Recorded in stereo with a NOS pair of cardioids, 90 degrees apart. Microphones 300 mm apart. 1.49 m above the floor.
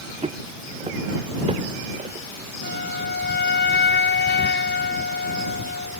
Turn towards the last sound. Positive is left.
turn(degrees=35)